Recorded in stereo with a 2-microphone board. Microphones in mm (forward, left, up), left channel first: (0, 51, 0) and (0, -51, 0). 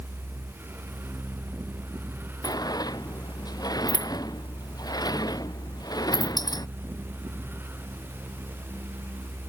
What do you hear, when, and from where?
2.4 s a sliding door: 40° left (ahead or behind)